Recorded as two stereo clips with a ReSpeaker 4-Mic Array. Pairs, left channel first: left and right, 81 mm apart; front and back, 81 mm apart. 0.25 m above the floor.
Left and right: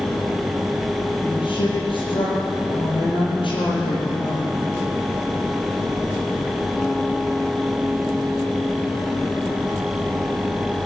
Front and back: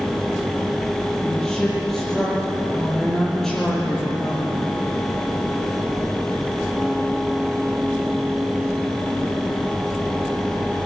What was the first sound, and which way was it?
A woman speaking, 85° left.